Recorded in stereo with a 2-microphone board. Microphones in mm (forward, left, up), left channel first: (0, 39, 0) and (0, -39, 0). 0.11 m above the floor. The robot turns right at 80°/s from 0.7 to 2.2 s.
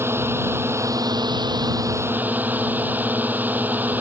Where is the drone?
145° right; by 4.0 s 25° right.